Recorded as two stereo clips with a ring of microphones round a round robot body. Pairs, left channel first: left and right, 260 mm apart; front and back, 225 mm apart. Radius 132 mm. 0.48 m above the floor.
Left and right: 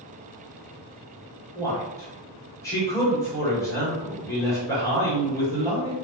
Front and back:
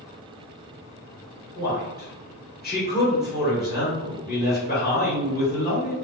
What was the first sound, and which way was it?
A man speaking, 15° left.